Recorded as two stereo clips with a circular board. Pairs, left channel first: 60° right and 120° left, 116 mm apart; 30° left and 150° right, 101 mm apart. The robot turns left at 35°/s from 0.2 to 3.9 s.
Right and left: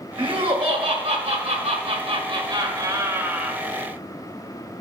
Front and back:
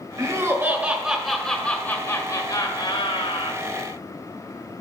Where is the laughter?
155° left, 1.4 m; by 3.6 s 35° left, 1.4 m.